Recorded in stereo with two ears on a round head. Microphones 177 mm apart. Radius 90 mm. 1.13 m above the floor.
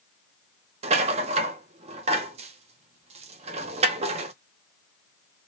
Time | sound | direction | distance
0.8 | a rattle | 30° right (ahead or behind) | 0.5 m